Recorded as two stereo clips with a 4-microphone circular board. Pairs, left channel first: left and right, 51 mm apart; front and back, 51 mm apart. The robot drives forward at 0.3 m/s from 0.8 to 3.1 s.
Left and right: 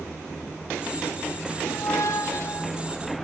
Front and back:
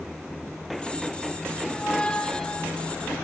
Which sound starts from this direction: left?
A squeak, at 1.6 s.